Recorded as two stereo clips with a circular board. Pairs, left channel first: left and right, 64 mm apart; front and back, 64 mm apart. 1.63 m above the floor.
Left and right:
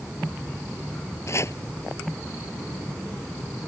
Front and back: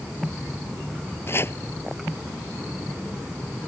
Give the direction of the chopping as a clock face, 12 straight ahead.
10 o'clock.